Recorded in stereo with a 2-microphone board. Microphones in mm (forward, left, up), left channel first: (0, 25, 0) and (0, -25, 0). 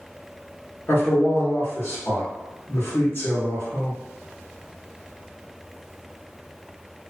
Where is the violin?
No violin in this recording.